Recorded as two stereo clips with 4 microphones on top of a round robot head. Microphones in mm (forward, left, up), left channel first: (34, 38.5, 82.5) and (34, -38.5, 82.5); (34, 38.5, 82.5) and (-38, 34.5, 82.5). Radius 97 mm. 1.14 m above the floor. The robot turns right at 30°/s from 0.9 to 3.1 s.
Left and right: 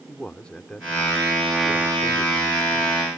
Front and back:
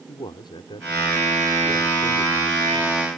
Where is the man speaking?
15° left; by 3.1 s 80° left.